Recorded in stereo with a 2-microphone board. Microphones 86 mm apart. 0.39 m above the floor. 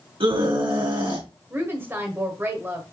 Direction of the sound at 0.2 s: 75° right (ahead or behind).